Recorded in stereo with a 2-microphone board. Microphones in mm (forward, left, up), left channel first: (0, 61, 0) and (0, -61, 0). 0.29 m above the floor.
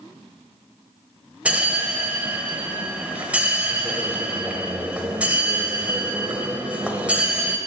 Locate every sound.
1.4 s a bell: 10° right (ahead or behind), 0.9 m